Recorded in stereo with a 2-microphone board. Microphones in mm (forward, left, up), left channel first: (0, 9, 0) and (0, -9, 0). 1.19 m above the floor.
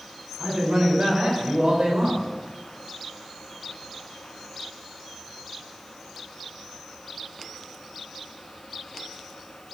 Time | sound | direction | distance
0.4 | a man speaking | 85° right | 5.5 m